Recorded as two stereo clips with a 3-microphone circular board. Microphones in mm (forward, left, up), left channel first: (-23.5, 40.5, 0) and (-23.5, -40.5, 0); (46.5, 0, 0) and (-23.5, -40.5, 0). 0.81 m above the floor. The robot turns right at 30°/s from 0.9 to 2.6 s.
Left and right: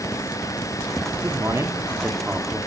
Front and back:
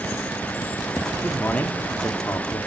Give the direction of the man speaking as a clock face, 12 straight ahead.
2 o'clock.